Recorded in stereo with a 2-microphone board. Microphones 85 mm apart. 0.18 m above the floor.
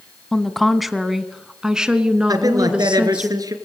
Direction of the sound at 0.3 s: 5° left (ahead or behind).